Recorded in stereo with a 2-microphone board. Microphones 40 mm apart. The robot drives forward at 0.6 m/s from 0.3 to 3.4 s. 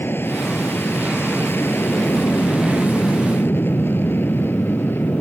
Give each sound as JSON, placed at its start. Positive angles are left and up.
{"t": 0.0, "sound": "an aircraft", "side_deg": 70}